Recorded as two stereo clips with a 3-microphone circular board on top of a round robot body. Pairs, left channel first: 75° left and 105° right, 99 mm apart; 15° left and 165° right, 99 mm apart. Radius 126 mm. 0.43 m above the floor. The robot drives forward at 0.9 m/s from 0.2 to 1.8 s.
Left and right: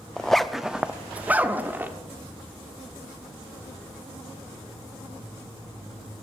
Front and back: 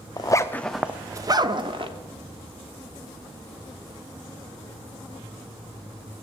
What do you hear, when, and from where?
0.2 s a zipper: 10° right, 0.8 m; by 1.9 s 175° right, 1.1 m